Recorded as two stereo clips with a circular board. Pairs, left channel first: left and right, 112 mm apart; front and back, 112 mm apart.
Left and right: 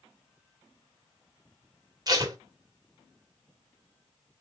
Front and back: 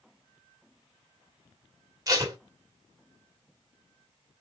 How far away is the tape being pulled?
About 1.1 m.